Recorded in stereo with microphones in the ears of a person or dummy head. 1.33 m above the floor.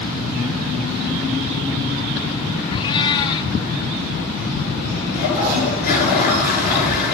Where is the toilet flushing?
45° left (ahead or behind), 7 m.